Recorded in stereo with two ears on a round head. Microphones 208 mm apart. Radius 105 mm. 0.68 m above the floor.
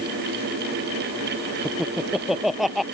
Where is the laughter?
Centre (ahead or behind).